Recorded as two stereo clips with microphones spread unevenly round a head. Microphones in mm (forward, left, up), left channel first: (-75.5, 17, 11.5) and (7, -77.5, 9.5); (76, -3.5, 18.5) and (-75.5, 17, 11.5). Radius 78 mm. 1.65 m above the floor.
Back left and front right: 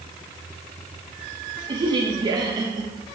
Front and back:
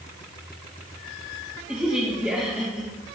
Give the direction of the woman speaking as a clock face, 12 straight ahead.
3 o'clock.